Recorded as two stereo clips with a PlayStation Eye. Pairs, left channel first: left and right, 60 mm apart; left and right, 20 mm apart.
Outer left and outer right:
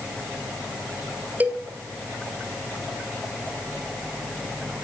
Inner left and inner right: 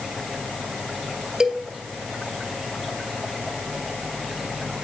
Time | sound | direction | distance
1.4 | a cowbell | 30° right (ahead or behind) | 2 m